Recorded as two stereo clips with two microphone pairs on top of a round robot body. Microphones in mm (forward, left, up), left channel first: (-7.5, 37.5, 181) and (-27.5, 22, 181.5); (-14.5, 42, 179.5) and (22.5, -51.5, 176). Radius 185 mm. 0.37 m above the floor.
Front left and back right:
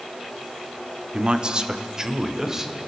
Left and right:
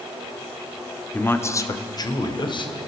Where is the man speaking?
Straight behind, 1.9 m; by 2.7 s 145° left, 3.5 m.